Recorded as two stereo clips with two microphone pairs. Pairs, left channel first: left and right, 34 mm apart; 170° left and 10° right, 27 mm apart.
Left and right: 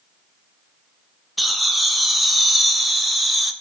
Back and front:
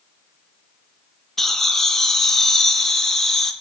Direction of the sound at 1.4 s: 170° right.